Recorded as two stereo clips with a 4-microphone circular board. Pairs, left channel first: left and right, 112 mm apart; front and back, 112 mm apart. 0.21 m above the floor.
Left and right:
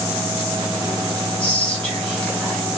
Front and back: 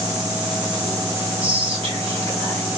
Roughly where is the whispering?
Behind.